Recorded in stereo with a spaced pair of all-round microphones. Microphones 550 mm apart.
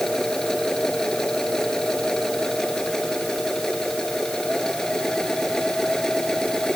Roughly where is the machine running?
Centre.